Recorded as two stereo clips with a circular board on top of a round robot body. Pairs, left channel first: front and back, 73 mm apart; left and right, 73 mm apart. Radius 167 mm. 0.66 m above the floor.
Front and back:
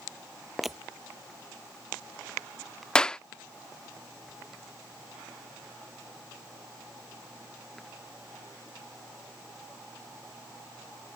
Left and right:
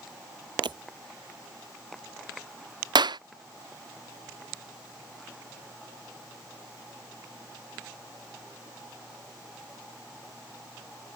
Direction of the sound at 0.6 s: 95° right.